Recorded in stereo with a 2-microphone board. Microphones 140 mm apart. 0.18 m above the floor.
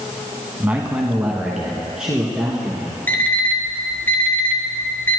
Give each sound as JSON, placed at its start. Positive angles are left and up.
{"t": 0.6, "sound": "a man speaking", "side_deg": -10, "distance_m": 1.1}
{"t": 3.1, "sound": "an alarm clock", "side_deg": 15, "distance_m": 1.5}